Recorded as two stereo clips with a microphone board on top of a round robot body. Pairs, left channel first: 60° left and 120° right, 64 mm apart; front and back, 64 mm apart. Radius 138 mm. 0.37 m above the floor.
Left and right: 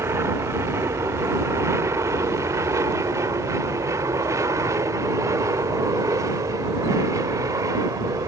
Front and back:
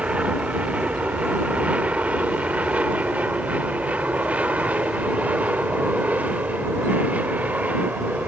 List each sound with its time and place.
0.0 s an aircraft: 120° right